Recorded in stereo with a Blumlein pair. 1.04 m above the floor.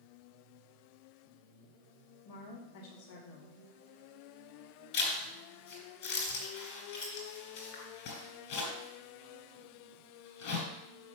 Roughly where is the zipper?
Ahead left.